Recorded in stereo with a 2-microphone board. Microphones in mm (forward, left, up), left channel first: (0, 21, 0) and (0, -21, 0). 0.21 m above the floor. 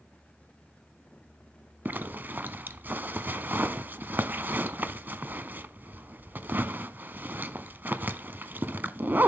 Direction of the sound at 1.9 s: 50° right (ahead or behind).